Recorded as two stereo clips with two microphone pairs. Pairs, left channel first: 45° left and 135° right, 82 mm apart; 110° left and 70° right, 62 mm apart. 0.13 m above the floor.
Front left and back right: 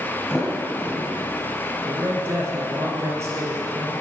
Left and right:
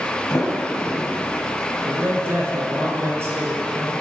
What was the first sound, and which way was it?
A sliding door, 135° left.